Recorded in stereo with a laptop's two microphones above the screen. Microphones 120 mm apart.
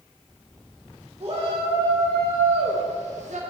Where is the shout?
50° right (ahead or behind), 1.8 m; by 3.4 s 75° right (ahead or behind), 1.1 m.